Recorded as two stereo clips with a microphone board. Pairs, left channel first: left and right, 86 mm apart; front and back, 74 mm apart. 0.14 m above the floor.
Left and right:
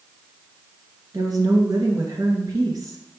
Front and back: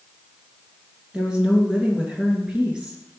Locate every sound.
1.1 s a woman speaking: 105° right, 2 m